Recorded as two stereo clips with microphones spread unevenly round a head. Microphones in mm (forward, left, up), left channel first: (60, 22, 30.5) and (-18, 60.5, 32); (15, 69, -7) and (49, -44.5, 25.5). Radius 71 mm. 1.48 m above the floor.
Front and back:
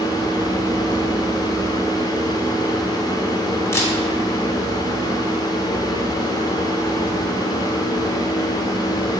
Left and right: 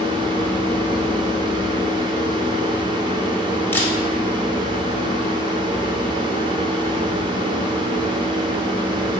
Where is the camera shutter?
25° left, 1.9 m.